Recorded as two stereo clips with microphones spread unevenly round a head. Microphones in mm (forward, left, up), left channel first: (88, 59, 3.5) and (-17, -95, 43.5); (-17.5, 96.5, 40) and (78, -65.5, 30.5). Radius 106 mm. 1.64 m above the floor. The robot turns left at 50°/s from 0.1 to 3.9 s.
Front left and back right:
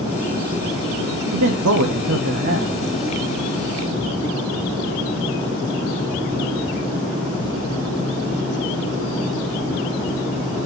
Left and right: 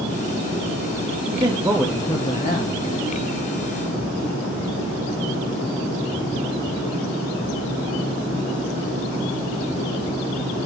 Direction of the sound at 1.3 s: 120° right.